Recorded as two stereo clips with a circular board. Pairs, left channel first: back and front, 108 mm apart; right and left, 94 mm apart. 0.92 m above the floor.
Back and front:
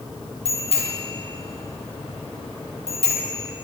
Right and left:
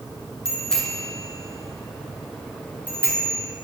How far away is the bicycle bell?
About 7.5 m.